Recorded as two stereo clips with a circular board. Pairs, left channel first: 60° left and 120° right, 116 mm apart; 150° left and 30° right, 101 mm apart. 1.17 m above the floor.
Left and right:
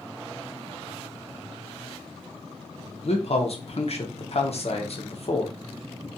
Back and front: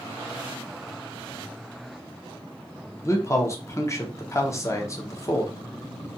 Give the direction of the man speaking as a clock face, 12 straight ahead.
9 o'clock.